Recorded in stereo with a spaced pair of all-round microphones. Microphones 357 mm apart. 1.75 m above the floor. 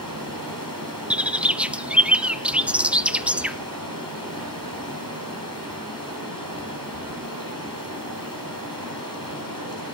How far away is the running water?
About 7 m.